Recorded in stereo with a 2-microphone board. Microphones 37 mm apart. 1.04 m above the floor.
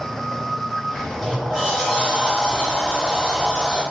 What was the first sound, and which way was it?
A sliding door, centre (ahead or behind).